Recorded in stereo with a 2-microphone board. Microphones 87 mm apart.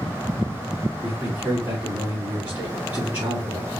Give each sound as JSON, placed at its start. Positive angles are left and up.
{"t": 1.0, "sound": "a man speaking", "side_deg": -20, "distance_m": 3.0}